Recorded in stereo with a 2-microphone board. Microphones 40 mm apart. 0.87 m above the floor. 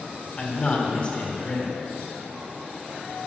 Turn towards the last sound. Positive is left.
turn(degrees=25)  # may be behind; listen again after turning